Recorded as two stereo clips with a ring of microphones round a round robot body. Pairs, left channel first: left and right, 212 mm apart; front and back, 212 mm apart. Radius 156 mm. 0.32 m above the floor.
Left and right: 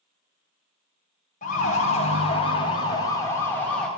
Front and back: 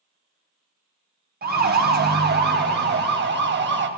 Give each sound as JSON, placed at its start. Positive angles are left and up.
{"t": 1.4, "sound": "a siren", "azimuth_deg": 145, "distance_m": 3.5}